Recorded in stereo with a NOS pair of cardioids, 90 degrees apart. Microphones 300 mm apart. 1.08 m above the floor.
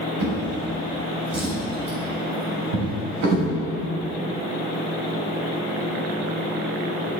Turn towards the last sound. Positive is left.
turn(degrees=-70)